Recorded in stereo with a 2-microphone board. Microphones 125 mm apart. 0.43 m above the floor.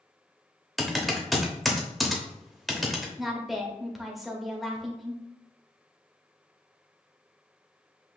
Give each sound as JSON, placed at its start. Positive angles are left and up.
{"t": 0.8, "sound": "typing on a keyboard", "side_deg": 0, "distance_m": 0.9}
{"t": 3.2, "sound": "a woman speaking", "side_deg": 0, "distance_m": 1.0}